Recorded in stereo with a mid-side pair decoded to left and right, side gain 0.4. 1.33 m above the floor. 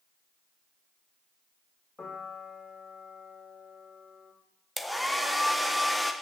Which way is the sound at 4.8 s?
5° left.